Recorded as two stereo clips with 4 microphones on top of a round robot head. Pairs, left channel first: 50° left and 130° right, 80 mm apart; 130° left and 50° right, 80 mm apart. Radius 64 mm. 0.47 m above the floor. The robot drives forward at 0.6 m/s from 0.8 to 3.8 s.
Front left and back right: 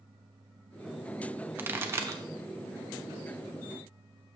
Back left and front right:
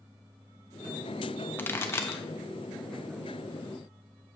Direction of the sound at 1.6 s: Straight behind.